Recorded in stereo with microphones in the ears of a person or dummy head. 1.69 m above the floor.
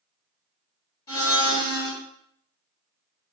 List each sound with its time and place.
1.1 s a blender: 20° left (ahead or behind), 1.1 m